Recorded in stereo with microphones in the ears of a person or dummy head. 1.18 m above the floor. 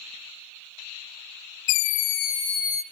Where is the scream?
65° left (ahead or behind), 0.6 m; by 2.8 s 35° right (ahead or behind), 1.0 m.